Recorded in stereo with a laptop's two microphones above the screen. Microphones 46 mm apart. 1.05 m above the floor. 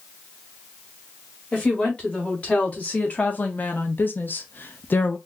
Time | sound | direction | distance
1.5 | a woman speaking | 25° left (ahead or behind) | 2.0 m